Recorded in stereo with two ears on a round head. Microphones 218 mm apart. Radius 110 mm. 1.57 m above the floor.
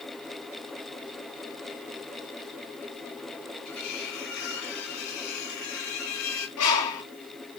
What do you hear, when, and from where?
3.6 s cutlery clinking: 75° left (ahead or behind), 4.5 m
6.6 s a bird: 90° left, 6.5 m